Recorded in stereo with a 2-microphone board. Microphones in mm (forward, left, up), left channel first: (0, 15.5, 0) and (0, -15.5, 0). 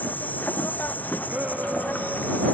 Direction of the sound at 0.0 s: 80° left.